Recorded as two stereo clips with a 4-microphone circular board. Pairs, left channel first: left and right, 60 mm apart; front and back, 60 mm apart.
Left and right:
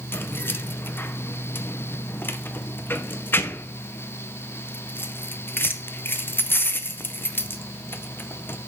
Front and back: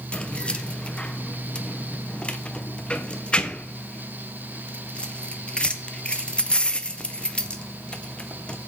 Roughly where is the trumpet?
No trumpet in this recording.